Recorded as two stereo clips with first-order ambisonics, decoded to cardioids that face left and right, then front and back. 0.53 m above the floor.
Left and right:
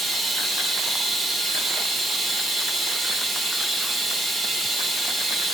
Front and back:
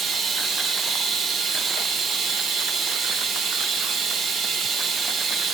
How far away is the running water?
About 1.0 m.